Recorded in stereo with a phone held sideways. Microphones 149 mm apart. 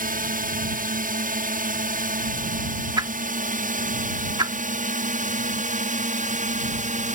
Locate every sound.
0.0 s a drone: 65° right (ahead or behind); by 7.2 s 55° right (ahead or behind)
3.0 s a whoosh: 30° right (ahead or behind)